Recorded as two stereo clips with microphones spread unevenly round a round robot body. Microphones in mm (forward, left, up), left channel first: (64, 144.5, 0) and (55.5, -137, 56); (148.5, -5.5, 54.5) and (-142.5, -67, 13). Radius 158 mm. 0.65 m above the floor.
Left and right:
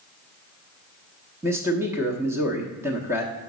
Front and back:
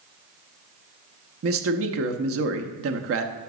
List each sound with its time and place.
1.4 s a man speaking: straight behind, 0.9 m